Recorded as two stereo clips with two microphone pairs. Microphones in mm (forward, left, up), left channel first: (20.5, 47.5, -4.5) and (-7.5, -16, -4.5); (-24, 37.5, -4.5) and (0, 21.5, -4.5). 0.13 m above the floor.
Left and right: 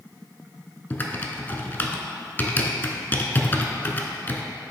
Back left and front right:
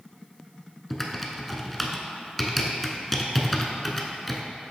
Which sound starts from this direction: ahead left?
Typing on a keyboard, at 0.9 s.